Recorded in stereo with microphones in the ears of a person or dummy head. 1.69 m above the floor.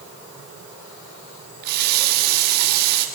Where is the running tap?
55° right (ahead or behind), 2.0 m.